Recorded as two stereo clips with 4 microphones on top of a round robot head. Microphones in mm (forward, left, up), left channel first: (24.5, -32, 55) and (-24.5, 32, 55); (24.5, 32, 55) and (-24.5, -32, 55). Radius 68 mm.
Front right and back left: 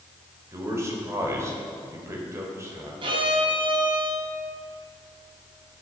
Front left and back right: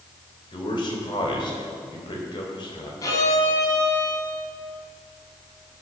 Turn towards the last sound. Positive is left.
turn(degrees=100)